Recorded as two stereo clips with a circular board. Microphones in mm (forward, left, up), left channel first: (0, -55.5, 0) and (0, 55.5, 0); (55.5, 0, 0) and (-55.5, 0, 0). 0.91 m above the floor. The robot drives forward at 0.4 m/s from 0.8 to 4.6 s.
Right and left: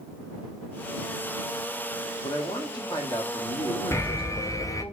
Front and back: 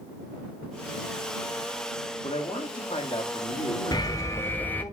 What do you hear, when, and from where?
2.2 s a man speaking: 35° right, 2 m; by 4.9 s 60° right, 1.5 m
3.9 s an alarm: 35° right, 0.8 m; by 4.8 s 60° right, 0.7 m